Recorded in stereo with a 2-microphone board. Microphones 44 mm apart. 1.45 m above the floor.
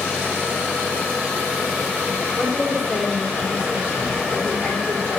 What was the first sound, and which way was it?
A woman speaking, 40° left (ahead or behind).